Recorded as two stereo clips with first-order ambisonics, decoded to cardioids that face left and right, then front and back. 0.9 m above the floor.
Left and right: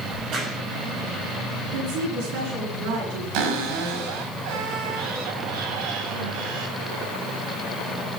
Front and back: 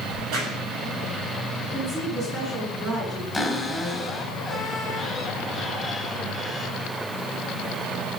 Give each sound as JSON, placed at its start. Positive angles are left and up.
{"t": 0.1, "sound": "a crack", "azimuth_deg": -140, "distance_m": 5.5}
{"t": 1.6, "sound": "a woman speaking", "azimuth_deg": -105, "distance_m": 7.0}
{"t": 3.3, "sound": "a cupboard door", "azimuth_deg": -90, "distance_m": 5.0}